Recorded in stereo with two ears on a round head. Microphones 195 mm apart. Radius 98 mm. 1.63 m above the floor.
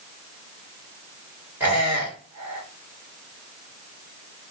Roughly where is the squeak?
Centre.